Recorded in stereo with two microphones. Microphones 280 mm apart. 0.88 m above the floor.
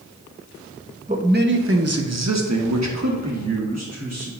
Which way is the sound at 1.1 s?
25° right (ahead or behind).